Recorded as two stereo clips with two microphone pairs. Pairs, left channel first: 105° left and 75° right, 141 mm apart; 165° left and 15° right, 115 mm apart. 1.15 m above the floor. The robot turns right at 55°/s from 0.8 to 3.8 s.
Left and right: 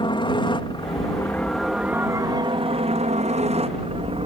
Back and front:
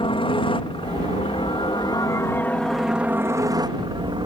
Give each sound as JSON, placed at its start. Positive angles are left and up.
{"t": 0.0, "sound": "a helicopter", "azimuth_deg": 145}